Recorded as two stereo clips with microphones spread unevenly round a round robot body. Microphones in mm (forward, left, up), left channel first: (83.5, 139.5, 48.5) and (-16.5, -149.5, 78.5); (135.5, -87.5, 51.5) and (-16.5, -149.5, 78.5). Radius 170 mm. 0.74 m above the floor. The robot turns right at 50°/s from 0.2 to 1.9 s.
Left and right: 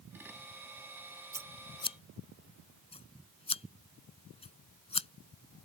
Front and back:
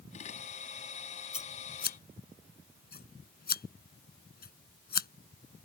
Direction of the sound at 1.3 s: 30° right.